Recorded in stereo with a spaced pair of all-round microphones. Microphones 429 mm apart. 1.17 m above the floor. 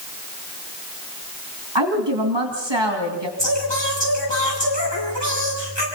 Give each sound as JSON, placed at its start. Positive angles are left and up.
{"t": 1.8, "sound": "a woman speaking", "side_deg": -75, "distance_m": 2.5}
{"t": 3.4, "sound": "singing", "side_deg": 75, "distance_m": 8.5}